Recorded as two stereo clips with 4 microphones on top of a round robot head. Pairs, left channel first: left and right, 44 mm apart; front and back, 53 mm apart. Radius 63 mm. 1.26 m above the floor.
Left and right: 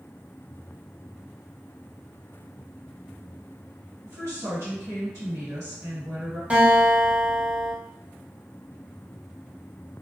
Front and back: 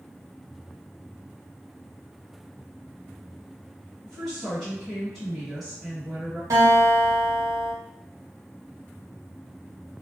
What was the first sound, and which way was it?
A woman speaking, 90° right.